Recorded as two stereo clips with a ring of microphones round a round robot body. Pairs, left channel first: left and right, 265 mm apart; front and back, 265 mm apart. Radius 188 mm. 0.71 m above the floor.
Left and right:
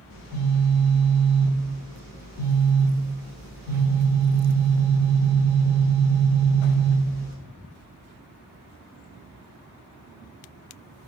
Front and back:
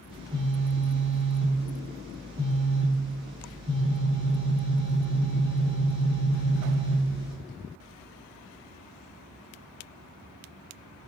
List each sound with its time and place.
0.1 s a phone buzzing: 110° left, 1.0 m